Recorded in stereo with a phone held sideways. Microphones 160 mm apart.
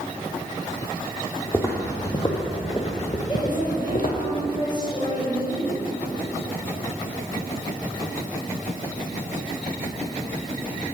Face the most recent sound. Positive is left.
turn(degrees=30)  # may be behind; listen again after turning